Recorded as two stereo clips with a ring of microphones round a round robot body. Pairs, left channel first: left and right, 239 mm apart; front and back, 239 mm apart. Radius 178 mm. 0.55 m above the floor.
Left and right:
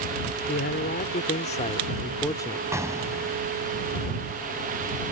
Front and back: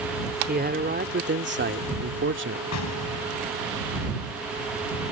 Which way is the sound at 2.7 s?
10° right.